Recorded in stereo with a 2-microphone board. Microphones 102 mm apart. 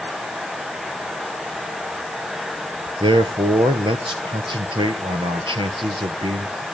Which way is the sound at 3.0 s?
55° right (ahead or behind).